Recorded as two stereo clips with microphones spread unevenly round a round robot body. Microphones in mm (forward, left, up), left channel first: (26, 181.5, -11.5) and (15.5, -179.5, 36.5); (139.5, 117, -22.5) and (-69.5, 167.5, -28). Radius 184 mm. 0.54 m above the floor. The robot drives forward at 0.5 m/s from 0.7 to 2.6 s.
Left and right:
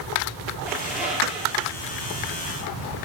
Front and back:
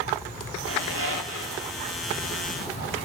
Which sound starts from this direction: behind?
A squeak, at 0.7 s.